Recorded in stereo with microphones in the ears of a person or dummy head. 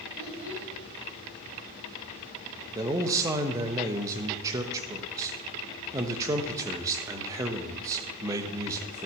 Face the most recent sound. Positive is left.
turn(degrees=-20)  # may be behind; listen again after turning